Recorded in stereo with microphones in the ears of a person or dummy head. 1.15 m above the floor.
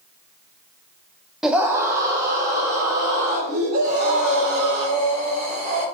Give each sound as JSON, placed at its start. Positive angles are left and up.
{"t": 1.4, "sound": "a scream", "side_deg": 0, "distance_m": 0.6}
{"t": 3.8, "sound": "breathing", "side_deg": -40, "distance_m": 3.5}